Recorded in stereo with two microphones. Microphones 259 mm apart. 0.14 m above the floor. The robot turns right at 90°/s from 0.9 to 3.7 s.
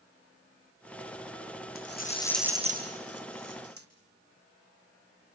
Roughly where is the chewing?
I don't hear chewing.